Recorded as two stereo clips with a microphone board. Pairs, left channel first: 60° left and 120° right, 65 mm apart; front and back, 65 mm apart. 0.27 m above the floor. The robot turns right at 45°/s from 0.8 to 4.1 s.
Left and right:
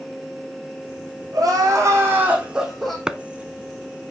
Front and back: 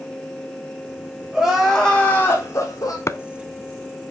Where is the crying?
100° right, 4.5 m; by 3.0 s 25° right, 4.5 m.